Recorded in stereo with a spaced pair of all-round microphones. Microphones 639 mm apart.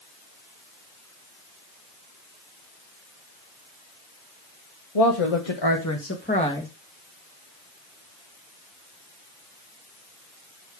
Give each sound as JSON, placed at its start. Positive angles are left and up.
{"t": 5.0, "sound": "a woman speaking", "side_deg": 65, "distance_m": 1.5}